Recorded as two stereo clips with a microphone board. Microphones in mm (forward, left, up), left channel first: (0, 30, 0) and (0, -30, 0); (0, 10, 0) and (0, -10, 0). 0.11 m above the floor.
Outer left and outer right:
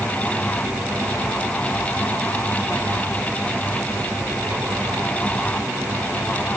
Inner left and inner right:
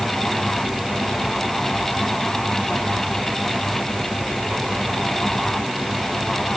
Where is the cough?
I don't hear a cough.